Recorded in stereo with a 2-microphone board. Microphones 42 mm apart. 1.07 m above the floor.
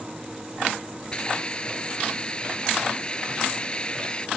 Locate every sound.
1.1 s a hiss: 20° left (ahead or behind)